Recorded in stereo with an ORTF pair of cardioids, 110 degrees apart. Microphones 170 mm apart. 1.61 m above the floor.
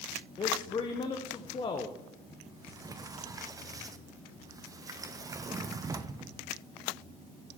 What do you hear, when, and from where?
0.4 s a man speaking: 30° left, 0.9 m
2.5 s a sliding door: 20° right, 0.6 m